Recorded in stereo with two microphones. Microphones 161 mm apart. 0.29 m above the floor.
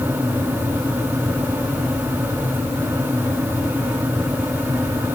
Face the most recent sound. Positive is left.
No sound to turn to.